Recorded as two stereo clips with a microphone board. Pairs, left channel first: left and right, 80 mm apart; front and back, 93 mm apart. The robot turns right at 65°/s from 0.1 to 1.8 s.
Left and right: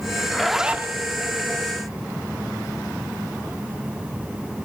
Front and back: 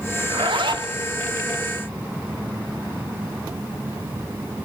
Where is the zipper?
165° left, 1.0 m; by 0.9 s 150° right, 1.0 m.